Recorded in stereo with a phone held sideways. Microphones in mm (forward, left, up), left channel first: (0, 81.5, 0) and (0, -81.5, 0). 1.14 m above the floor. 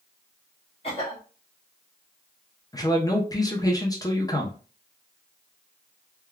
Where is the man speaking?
20° left (ahead or behind), 0.7 m.